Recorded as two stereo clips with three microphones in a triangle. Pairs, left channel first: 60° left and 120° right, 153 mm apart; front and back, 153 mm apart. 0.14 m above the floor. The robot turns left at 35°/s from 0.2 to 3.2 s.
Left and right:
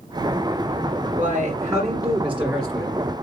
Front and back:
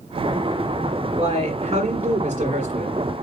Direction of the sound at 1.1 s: 155° right.